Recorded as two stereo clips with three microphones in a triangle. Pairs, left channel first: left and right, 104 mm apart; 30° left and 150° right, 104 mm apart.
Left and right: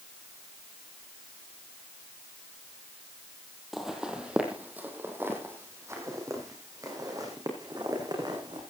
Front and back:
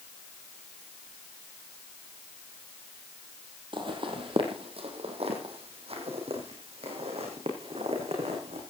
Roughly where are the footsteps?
Behind.